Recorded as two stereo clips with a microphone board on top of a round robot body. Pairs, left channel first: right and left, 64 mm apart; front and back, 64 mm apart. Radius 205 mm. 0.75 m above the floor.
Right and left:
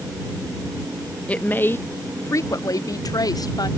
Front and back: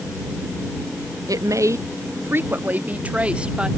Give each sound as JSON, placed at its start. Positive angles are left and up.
{"t": 1.3, "sound": "a woman speaking", "azimuth_deg": -160}